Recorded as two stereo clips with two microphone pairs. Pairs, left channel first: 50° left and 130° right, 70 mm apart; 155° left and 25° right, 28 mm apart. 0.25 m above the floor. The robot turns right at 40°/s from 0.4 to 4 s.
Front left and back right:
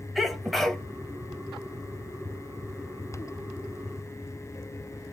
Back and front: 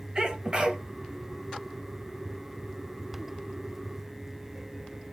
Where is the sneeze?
35° right, 1.1 m; by 0.8 s 20° right, 1.1 m.